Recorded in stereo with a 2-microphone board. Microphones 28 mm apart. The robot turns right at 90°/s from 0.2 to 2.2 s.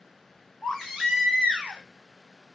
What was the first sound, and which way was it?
A baby crying, 150° left.